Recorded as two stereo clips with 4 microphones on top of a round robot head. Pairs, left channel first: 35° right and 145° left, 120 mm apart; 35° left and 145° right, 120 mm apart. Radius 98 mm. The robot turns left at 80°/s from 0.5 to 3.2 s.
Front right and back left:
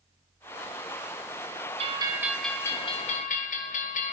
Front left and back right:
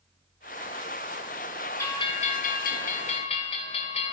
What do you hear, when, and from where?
1.8 s a bell: 105° left, 2 m; by 4.1 s 5° right, 2 m